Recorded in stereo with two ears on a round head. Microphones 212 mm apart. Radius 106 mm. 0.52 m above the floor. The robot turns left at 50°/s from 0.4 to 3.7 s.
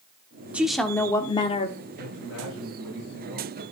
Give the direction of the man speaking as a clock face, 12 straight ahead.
8 o'clock.